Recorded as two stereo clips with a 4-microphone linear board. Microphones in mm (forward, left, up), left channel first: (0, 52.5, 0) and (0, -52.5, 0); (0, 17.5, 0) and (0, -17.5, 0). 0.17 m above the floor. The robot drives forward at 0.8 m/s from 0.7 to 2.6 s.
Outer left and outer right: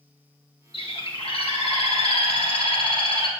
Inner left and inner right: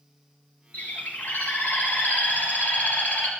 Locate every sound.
0.7 s a bird: 55° left (ahead or behind), 1.9 m; by 3.3 s 60° left (ahead or behind), 1.8 m